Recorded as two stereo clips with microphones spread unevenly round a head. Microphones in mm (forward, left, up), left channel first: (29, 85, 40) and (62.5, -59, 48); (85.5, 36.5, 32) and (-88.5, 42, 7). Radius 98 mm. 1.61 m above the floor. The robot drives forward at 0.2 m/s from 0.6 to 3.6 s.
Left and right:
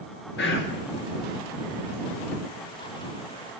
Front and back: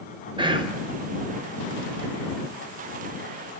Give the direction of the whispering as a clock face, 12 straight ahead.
8 o'clock.